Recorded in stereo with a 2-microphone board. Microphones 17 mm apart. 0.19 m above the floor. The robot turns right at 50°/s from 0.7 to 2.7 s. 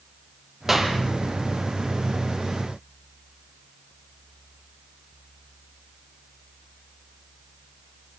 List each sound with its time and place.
0.7 s a clap: 20° right (ahead or behind), 4 m; by 1.0 s 35° right (ahead or behind), 4 m